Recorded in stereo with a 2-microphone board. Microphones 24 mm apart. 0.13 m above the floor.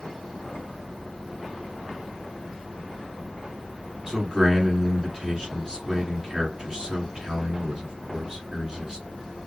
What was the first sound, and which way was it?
A man speaking, 20° right (ahead or behind).